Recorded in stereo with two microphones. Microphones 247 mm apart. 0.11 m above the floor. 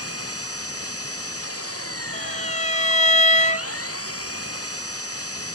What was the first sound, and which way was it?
An engine running, 70° left (ahead or behind).